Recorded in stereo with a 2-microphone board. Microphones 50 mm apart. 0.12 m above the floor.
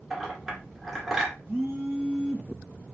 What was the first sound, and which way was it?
A clink, 5° right (ahead or behind).